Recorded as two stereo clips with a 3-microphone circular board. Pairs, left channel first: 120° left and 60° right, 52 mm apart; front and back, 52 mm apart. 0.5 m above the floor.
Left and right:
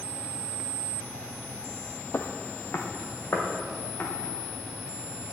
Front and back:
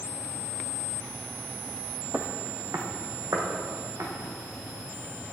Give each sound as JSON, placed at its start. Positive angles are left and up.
{"t": 2.1, "sound": "footsteps", "azimuth_deg": 140, "distance_m": 0.8}